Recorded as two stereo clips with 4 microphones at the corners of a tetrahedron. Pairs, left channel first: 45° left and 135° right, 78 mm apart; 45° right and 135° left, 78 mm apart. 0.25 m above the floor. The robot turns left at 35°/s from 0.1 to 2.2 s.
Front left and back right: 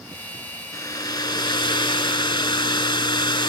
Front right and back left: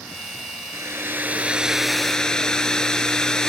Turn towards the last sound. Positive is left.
turn(degrees=35)